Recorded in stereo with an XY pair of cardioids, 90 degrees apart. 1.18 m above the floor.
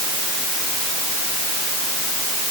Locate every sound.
Only background noise.